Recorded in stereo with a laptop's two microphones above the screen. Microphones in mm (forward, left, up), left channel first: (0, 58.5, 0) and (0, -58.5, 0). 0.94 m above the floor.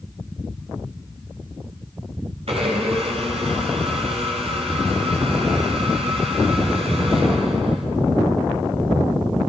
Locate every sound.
2.5 s a blender: 60° right (ahead or behind), 4 m